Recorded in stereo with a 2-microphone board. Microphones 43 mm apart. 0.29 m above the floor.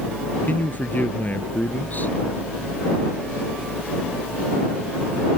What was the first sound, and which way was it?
A man speaking, 45° left (ahead or behind).